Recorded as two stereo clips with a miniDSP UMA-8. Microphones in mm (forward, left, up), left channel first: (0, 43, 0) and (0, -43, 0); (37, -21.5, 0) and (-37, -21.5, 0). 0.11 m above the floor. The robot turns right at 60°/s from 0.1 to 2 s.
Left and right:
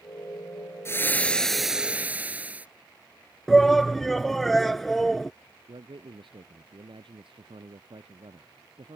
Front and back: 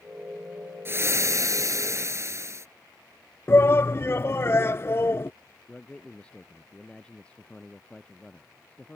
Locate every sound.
0.8 s frying: 135° left; by 2.7 s 155° right
3.5 s a shout: 5° left
5.7 s a man speaking: 75° right